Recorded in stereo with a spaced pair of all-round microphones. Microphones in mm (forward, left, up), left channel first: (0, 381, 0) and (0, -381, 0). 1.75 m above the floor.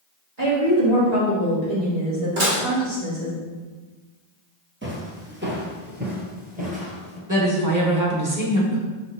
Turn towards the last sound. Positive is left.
turn(degrees=-25)  # may be behind; listen again after turning